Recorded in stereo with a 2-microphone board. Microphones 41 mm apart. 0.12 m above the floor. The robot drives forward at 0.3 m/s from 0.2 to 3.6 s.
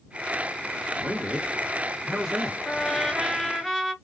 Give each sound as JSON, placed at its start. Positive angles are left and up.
{"t": 1.0, "sound": "a man speaking", "side_deg": -20, "distance_m": 1.4}
{"t": 2.6, "sound": "a trumpet", "side_deg": 0, "distance_m": 1.8}